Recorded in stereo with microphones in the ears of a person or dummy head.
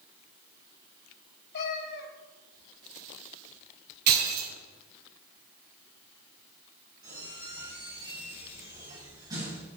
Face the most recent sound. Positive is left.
turn(degrees=-20)  # may be behind; listen again after turning